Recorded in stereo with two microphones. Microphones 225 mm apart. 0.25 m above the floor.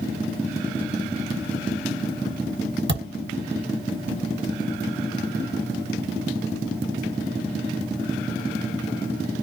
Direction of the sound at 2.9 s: 55° right (ahead or behind).